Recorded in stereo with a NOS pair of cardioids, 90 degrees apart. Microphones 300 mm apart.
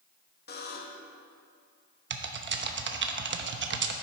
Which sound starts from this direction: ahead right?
Typing on a keyboard, at 2.1 s.